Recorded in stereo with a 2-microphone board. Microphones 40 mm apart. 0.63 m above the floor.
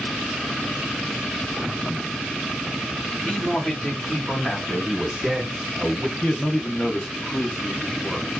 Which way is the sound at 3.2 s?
30° left (ahead or behind).